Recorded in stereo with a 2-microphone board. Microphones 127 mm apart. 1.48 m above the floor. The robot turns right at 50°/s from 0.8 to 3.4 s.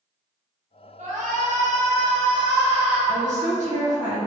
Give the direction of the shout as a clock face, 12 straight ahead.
4 o'clock.